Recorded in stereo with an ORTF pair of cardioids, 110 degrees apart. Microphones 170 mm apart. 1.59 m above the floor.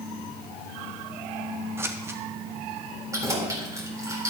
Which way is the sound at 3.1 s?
20° right.